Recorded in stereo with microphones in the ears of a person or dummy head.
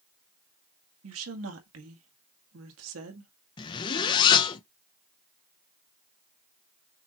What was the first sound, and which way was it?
A woman speaking, 85° right.